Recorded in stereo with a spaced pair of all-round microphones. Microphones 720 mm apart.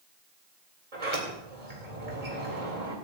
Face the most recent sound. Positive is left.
turn(degrees=-80)